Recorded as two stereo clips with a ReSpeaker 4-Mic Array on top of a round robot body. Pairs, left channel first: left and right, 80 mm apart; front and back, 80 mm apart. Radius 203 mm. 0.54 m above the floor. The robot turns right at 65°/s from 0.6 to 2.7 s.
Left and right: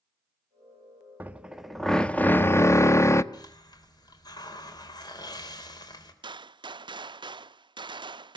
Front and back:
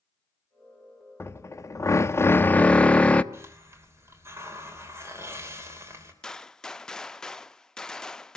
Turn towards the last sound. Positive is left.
turn(degrees=-80)